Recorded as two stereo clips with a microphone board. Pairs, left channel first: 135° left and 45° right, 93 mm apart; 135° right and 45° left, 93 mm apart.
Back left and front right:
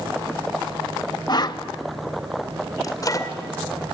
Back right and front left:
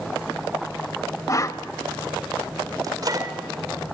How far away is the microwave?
About 2.0 m.